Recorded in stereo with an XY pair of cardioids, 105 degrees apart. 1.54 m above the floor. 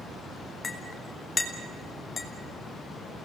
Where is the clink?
40° left, 3 m.